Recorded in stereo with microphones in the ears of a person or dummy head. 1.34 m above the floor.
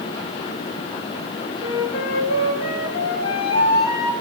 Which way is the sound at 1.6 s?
55° left (ahead or behind).